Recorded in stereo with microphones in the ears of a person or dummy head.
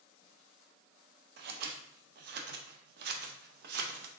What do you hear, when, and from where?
1.4 s scissors: 60° right (ahead or behind), 0.6 m